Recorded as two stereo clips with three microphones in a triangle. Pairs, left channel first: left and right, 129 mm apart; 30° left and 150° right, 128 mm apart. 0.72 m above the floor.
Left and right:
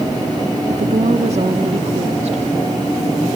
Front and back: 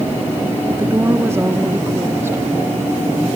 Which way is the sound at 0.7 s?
85° right.